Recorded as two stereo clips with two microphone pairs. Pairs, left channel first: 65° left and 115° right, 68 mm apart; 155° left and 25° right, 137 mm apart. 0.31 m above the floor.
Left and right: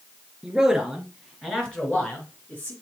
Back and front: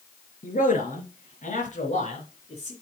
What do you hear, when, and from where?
0.4 s a man speaking: 160° left, 4.5 m; by 2.7 s 125° left, 3 m